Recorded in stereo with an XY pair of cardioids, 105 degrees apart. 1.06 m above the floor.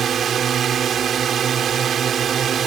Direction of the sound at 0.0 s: 55° right.